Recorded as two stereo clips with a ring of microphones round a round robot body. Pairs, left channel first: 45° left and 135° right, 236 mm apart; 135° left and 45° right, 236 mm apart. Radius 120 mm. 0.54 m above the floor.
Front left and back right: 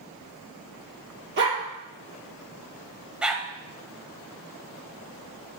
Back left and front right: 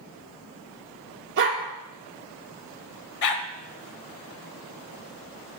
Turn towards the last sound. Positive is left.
turn(degrees=140)